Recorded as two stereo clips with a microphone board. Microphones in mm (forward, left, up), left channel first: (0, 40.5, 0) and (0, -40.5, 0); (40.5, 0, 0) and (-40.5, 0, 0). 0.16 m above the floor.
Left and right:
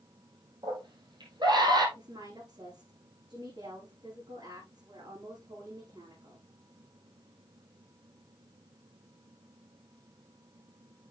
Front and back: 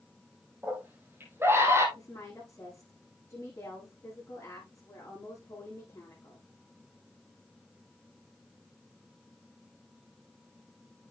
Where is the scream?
115° right, 5.5 m; by 1.9 s 125° right, 5.5 m.